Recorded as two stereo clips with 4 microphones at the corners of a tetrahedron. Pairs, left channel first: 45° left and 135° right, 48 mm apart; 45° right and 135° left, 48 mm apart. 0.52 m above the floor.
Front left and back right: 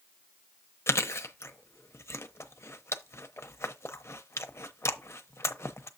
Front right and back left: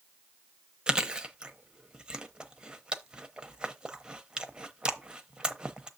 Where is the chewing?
60° left, 0.7 m.